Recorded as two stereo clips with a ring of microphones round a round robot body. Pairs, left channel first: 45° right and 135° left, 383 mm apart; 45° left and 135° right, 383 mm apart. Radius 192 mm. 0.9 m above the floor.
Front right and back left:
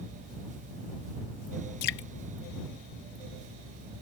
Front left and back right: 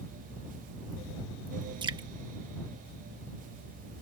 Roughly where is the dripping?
Ahead right.